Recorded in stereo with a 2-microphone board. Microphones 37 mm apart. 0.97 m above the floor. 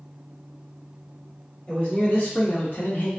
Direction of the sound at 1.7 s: 45° left (ahead or behind).